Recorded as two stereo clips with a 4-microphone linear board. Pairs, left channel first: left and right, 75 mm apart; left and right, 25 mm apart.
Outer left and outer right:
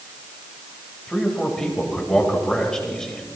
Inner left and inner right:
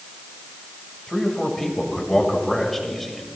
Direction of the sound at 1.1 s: 10° left (ahead or behind).